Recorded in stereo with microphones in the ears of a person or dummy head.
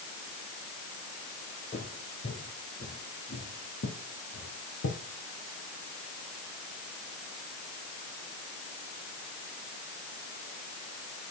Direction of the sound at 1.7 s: 25° left (ahead or behind).